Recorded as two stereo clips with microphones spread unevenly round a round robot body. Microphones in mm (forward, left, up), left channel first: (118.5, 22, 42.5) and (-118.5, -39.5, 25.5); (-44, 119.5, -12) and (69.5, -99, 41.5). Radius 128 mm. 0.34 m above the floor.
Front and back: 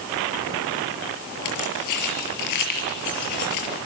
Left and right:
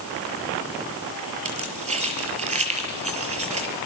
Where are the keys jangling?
5° left, 6 m.